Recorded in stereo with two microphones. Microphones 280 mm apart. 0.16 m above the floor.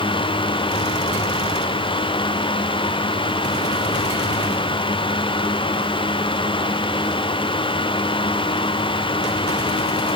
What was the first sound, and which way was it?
Only background noise.